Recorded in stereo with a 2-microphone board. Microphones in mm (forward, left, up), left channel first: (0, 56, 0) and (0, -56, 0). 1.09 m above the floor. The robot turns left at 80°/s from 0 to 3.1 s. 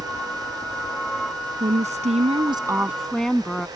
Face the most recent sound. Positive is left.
turn(degrees=175)